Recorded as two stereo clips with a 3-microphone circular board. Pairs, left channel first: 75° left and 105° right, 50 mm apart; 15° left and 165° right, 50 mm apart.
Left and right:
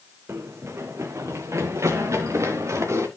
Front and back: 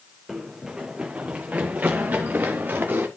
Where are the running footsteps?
80° right, 1.2 m; by 3.1 s 115° right, 2.5 m.